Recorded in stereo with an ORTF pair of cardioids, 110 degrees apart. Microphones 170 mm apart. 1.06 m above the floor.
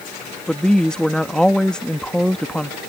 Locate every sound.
0.5 s a woman speaking: 5° left